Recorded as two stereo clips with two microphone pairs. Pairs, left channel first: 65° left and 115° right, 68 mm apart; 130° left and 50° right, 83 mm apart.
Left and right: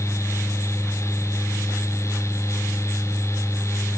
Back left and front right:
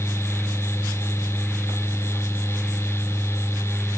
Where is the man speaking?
I don't hear a man speaking.